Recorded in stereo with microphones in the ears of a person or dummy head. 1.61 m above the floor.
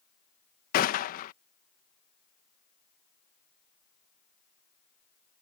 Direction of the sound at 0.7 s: 45° left (ahead or behind).